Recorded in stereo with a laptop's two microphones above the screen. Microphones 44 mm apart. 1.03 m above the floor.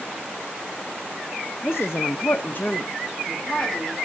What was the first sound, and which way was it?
A woman speaking, 45° left (ahead or behind).